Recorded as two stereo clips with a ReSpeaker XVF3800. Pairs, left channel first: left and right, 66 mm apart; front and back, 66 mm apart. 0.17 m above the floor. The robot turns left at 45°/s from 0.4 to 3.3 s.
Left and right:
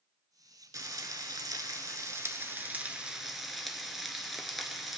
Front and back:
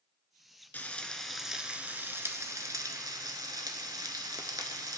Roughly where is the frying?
Ahead right.